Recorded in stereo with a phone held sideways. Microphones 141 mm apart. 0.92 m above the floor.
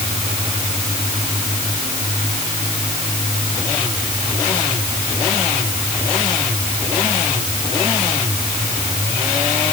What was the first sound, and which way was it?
Only background noise.